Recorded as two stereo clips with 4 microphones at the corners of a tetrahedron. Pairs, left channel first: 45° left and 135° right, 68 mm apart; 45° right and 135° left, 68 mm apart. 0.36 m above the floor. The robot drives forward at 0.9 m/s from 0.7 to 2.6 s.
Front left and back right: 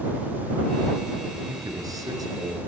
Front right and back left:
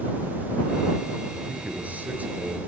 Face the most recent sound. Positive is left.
turn(degrees=-160)